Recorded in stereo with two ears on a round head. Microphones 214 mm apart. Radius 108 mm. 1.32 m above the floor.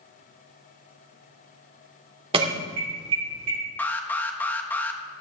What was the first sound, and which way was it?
An alarm, 25° right (ahead or behind).